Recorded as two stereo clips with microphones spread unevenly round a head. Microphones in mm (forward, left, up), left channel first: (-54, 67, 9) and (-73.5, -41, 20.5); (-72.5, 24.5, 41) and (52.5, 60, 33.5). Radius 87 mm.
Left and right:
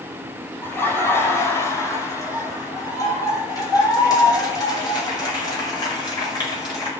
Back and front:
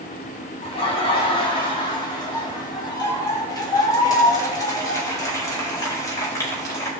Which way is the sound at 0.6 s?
150° left.